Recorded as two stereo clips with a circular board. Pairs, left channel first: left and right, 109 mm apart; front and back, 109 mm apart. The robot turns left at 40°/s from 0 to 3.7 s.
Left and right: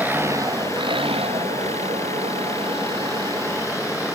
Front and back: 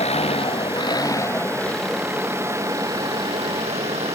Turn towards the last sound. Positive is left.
turn(degrees=-160)